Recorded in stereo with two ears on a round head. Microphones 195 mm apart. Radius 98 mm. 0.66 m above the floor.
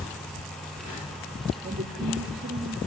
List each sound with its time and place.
1.6 s a woman speaking: 45° right (ahead or behind), 1.4 m